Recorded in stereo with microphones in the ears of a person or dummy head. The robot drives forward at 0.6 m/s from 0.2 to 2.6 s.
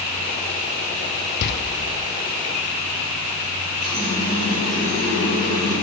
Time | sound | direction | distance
1.4 | a door slam | 55° left (ahead or behind) | 0.5 m
3.8 | a running tap | 45° right (ahead or behind) | 4 m